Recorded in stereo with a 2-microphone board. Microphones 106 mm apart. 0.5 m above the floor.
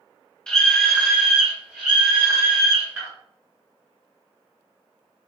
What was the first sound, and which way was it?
A scream, 5° left (ahead or behind).